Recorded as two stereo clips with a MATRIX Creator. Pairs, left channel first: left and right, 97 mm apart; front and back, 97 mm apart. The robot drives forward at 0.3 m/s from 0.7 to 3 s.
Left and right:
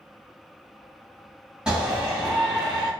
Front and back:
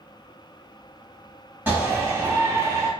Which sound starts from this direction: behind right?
A shout, at 1.7 s.